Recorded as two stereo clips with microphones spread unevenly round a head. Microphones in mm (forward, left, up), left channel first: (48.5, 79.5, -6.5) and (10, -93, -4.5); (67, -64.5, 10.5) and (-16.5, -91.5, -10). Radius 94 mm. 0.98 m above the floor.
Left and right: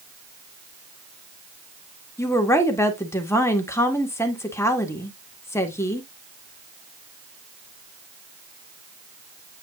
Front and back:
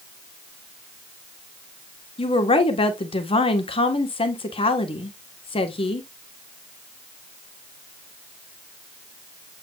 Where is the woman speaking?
Straight ahead, 1.7 m.